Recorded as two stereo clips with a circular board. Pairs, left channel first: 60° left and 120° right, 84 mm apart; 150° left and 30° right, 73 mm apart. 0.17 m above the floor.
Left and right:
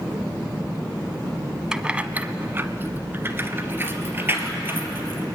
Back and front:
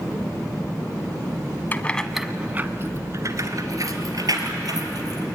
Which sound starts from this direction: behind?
Keys jangling, at 1.7 s.